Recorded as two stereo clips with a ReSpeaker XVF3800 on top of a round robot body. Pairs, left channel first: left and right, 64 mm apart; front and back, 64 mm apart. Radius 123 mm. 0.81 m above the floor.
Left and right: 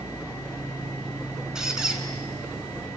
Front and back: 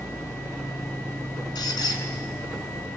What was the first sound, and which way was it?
A squeak, 10° right.